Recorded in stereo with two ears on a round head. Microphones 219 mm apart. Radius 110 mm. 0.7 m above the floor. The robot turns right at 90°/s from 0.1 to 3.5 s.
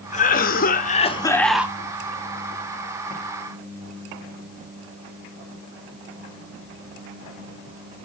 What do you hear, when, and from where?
0.1 s a cough: 55° left, 1.2 m; by 1.8 s 160° right, 1.2 m